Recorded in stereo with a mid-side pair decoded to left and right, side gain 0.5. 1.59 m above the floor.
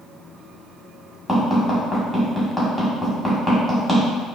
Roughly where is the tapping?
Ahead.